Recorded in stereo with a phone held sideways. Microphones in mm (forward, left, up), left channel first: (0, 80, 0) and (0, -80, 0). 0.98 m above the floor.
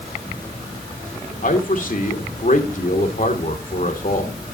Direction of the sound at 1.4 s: 55° left (ahead or behind).